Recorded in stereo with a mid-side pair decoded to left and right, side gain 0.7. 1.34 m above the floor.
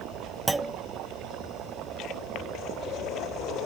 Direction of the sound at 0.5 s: 10° right.